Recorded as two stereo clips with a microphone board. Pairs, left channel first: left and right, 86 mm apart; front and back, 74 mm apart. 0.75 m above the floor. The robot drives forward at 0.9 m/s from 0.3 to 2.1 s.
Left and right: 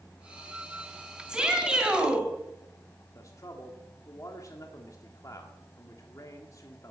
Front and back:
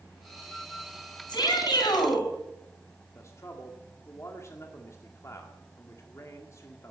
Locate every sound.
1.3 s a shout: 10° right, 5 m
3.1 s a man speaking: 45° left, 1.9 m